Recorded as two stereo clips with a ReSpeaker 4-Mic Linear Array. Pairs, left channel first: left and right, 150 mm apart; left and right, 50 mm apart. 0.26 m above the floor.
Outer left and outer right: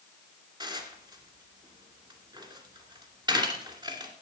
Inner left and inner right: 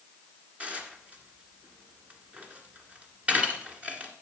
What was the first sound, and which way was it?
Dishes clattering, 30° right (ahead or behind).